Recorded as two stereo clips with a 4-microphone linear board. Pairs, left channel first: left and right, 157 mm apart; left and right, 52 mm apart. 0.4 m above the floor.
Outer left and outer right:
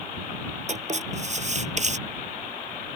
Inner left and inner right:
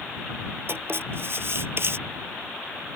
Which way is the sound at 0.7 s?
45° right (ahead or behind).